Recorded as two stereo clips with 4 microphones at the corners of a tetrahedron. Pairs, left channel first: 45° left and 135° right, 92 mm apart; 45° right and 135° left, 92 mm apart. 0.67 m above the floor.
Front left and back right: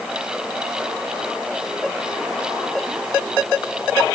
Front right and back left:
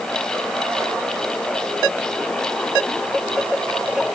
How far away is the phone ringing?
No phone ringing in this recording.